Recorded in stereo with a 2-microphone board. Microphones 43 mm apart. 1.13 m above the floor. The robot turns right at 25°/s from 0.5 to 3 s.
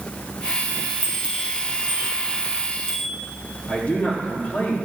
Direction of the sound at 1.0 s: 30° right (ahead or behind).